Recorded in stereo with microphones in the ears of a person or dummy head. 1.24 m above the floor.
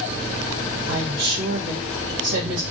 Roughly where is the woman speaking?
Right.